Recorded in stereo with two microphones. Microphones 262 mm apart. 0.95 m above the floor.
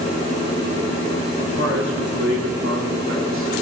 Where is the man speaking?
75° right (ahead or behind), 3 m; by 3.6 s 45° right (ahead or behind), 2.5 m.